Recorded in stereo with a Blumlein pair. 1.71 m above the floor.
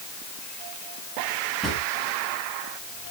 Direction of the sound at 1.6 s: 5° right.